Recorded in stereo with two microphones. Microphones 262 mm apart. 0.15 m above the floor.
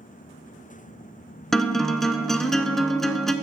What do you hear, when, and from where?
1.5 s a guitar: centre (ahead or behind), 0.5 m